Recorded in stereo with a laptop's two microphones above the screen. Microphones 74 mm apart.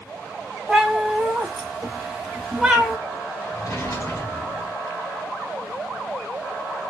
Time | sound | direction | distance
0.7 | a cat meowing | 10° right (ahead or behind) | 0.9 m
3.5 | a drawer | 50° left (ahead or behind) | 1.3 m